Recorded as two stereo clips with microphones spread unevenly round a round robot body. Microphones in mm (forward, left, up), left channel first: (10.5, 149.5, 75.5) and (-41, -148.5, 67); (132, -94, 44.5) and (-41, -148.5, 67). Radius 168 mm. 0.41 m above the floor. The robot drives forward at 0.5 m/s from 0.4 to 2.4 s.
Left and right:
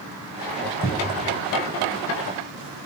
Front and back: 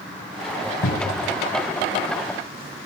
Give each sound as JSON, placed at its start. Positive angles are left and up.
{"t": 0.8, "sound": "a cupboard door", "azimuth_deg": 20, "distance_m": 2.0}